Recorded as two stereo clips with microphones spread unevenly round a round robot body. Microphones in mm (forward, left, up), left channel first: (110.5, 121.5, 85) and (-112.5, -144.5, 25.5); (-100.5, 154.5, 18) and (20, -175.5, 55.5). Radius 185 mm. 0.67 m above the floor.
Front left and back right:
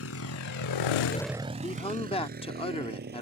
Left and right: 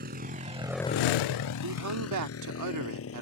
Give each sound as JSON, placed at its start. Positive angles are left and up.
{"t": 0.0, "sound": "a motorcycle", "azimuth_deg": -5}
{"t": 1.6, "sound": "a man speaking", "azimuth_deg": -30}